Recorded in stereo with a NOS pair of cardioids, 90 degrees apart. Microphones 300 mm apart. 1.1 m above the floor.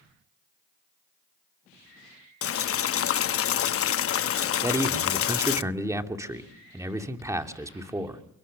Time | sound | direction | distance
2.4 | boiling | 50° left | 0.9 m
4.6 | a man speaking | 10° right | 2.5 m